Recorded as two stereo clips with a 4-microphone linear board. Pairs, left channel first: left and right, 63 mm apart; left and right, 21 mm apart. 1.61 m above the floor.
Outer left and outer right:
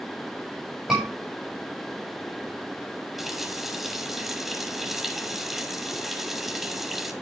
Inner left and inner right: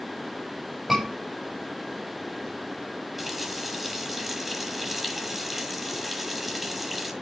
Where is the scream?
15° right (ahead or behind), 7 m.